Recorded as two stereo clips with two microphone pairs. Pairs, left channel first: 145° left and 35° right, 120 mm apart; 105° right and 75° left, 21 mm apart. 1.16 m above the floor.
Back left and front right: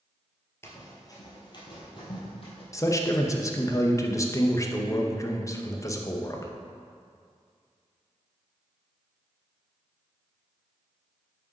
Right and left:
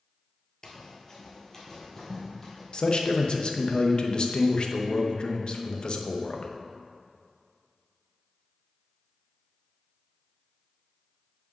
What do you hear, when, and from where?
0.6 s running footsteps: 160° right, 1.5 m; by 2.6 s 175° left, 3 m
2.7 s a man speaking: 155° right, 0.8 m